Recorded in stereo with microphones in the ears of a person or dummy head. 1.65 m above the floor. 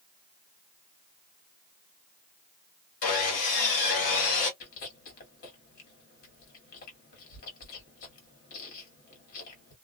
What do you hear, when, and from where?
3.0 s sawing: 40° left (ahead or behind), 1.2 m
4.6 s chewing: 50° left (ahead or behind), 1.6 m